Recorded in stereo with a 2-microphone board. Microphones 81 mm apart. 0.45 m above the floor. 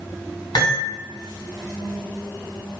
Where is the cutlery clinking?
65° left (ahead or behind), 2.0 m.